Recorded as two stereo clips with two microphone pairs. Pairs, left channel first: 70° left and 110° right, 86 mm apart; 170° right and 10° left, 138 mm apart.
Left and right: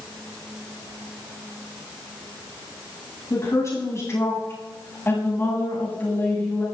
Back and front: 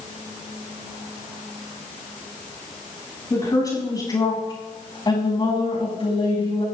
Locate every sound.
3.3 s a woman speaking: 120° left, 6 m; by 6.7 s 140° left, 6 m